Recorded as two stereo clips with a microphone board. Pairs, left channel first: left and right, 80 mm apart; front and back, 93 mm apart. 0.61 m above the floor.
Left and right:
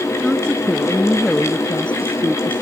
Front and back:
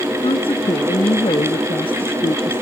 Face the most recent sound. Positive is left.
turn(degrees=15)